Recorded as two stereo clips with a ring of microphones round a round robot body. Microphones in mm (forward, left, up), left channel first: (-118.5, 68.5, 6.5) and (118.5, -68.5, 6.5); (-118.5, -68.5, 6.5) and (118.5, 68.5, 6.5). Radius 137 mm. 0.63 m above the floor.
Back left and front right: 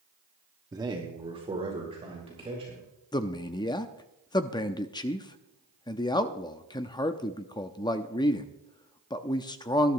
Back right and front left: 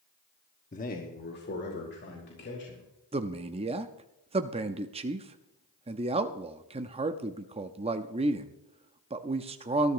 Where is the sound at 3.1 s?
85° left, 0.6 m.